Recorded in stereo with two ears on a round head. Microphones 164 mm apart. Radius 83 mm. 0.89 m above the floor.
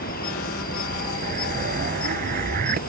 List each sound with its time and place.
0.0 s an insect: 50° left (ahead or behind)
1.2 s an explosion: 45° right (ahead or behind)